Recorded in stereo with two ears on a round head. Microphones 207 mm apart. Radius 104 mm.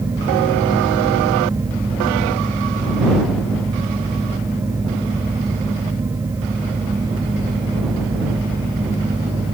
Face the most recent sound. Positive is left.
No sound to turn to.